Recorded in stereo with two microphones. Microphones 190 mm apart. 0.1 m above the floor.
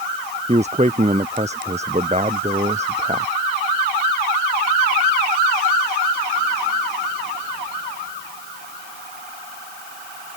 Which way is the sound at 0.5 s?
35° right (ahead or behind).